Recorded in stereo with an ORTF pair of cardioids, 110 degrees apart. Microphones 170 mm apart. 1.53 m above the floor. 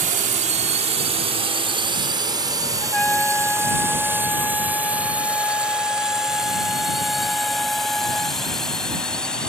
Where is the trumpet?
5° left.